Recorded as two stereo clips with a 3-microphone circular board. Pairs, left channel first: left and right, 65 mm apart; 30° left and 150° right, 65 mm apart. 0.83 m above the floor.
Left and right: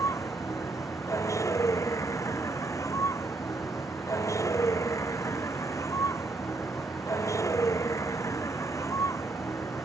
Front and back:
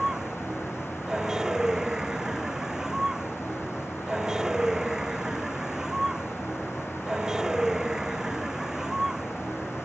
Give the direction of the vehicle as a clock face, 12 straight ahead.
8 o'clock.